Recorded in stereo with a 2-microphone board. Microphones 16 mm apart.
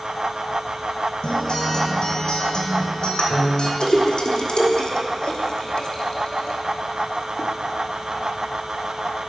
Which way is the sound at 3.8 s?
70° left (ahead or behind).